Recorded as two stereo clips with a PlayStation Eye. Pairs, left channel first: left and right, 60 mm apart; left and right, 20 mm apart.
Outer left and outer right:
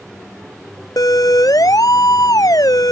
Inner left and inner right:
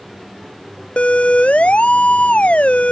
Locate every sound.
1.0 s a siren: 75° left (ahead or behind); by 2.9 s 80° left